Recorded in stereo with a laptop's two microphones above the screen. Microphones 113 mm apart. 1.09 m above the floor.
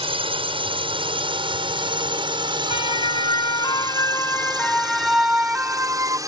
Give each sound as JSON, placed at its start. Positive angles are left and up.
{"t": 0.0, "sound": "a drone", "side_deg": -55}
{"t": 2.7, "sound": "a siren", "side_deg": 55}